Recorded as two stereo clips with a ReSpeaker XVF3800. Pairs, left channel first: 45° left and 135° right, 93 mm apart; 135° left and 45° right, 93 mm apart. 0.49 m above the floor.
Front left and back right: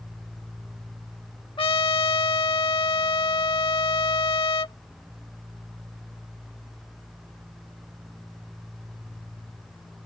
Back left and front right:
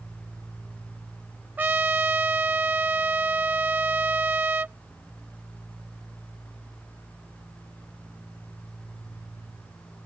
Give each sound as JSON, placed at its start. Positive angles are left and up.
{"t": 1.6, "sound": "a trumpet", "azimuth_deg": 25}